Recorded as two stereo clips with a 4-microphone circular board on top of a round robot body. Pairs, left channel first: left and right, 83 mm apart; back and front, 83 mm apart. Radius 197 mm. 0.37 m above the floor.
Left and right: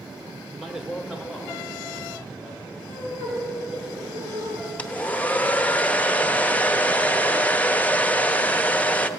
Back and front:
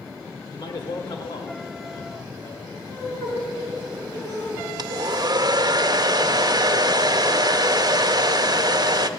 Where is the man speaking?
Straight behind, 1.5 m; by 3.3 s 170° right, 4.5 m.